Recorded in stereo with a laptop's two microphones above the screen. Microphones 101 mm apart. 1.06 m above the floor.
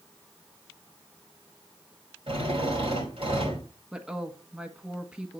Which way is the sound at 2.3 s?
65° right (ahead or behind).